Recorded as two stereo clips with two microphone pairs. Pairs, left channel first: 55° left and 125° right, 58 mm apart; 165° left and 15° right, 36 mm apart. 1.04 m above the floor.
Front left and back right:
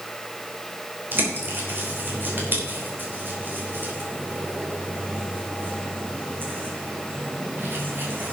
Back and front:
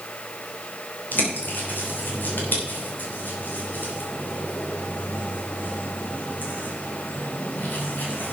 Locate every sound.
1.1 s a bird: straight behind, 3 m